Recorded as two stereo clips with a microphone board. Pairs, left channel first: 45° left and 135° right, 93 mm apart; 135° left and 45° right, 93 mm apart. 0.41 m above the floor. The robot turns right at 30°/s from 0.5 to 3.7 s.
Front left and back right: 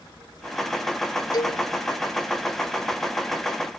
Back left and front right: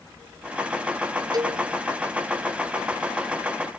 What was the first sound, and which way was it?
A cowbell, straight ahead.